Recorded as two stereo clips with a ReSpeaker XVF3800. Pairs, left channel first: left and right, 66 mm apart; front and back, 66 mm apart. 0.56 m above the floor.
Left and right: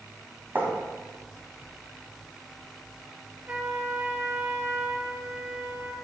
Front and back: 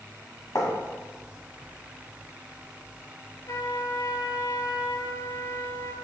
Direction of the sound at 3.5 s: 30° right.